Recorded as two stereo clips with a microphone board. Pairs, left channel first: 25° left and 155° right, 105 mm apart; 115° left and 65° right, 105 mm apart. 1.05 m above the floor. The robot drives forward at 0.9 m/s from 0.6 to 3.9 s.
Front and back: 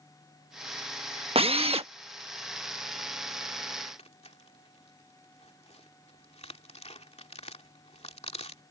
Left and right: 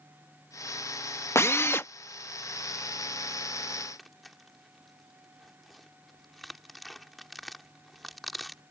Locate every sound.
1.4 s a drill: 175° left; by 1.9 s straight behind
4.0 s tearing paper: 25° left